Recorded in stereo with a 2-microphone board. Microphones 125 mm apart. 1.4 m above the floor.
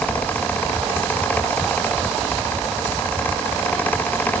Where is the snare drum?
No snare drum in this recording.